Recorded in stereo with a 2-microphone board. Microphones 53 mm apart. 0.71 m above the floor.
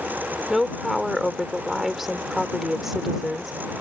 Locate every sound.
0.5 s a woman speaking: 5° right (ahead or behind)